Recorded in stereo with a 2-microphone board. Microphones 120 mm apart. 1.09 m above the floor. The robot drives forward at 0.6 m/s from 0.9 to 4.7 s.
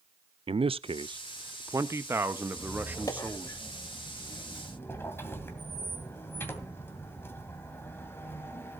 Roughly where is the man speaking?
Right.